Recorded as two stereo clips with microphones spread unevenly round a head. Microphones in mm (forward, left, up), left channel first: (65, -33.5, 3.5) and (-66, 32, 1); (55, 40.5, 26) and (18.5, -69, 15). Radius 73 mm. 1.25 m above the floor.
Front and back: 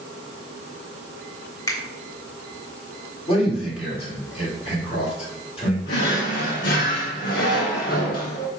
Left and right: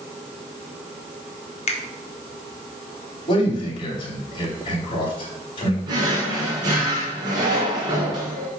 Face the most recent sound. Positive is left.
turn(degrees=-55)